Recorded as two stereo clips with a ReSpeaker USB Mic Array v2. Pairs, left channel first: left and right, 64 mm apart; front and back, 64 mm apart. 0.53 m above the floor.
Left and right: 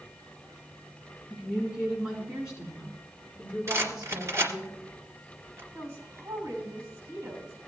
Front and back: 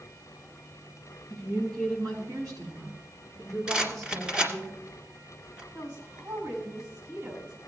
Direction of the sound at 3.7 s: 115° right.